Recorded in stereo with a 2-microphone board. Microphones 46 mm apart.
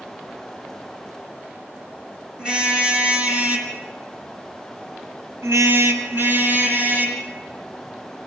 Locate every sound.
2.4 s a car horn: 20° right (ahead or behind), 4 m; by 7.2 s 40° right (ahead or behind), 3.5 m